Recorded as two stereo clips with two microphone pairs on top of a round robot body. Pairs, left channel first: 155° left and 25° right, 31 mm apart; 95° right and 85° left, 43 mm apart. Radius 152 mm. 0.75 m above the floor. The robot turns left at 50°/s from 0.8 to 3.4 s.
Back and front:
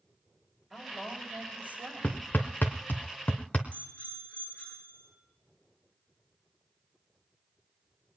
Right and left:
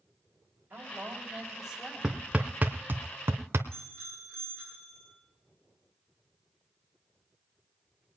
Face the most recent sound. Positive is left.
turn(degrees=-165)